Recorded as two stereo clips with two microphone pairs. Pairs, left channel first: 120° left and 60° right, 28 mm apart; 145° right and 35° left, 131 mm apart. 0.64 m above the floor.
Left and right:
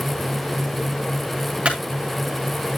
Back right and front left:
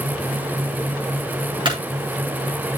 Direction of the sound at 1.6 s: 15° right.